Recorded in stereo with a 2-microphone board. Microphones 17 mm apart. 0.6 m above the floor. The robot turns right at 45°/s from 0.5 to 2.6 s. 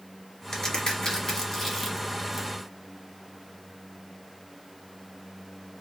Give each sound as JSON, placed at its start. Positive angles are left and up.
{"t": 0.5, "sound": "a crack", "side_deg": 35, "distance_m": 1.6}